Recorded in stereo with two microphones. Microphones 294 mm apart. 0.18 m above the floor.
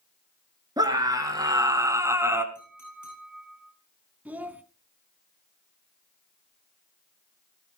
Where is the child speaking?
5° right (ahead or behind), 0.8 m.